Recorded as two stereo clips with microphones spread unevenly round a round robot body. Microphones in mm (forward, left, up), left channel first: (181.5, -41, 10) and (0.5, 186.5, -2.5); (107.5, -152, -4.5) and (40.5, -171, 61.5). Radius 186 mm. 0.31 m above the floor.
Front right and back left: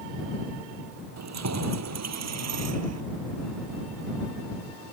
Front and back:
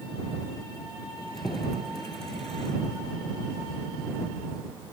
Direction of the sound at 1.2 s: 100° left.